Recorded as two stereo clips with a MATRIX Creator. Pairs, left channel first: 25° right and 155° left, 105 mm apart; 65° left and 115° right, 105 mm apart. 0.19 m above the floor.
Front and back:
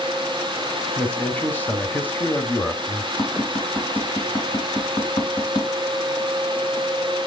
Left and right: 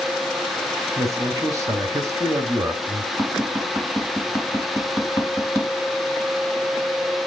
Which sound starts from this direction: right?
A man speaking, at 1.0 s.